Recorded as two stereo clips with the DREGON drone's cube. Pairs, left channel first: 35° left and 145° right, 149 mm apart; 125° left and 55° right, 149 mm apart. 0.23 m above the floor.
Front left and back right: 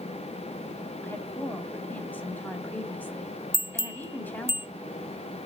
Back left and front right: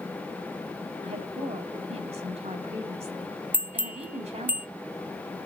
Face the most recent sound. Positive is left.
turn(degrees=-115)